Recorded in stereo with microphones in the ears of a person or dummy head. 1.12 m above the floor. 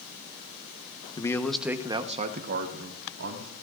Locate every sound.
1.2 s a man speaking: 20° left (ahead or behind), 1.1 m; by 3.5 s 70° right (ahead or behind), 2 m